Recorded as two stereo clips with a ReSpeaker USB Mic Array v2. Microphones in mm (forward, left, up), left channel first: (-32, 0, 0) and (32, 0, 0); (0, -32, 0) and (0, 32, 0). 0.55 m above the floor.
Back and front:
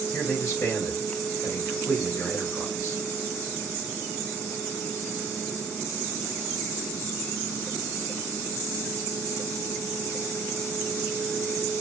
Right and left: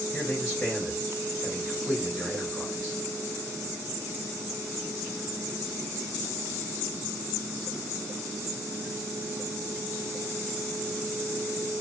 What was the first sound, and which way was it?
A man speaking, 135° right.